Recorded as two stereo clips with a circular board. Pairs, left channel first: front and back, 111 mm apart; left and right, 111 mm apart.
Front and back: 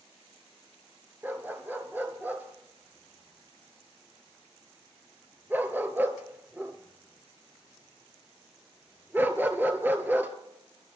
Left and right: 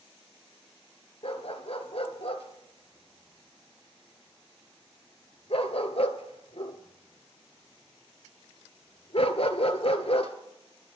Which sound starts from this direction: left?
A dog barking, at 1.2 s.